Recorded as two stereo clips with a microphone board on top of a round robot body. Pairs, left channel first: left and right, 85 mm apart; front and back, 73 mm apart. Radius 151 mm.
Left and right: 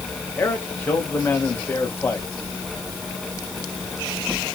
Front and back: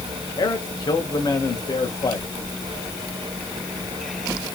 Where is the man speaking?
25° left, 3.5 m.